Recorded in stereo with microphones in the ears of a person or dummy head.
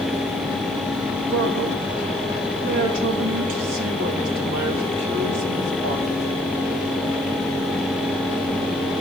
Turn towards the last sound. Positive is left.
turn(degrees=-75)  # may be behind; listen again after turning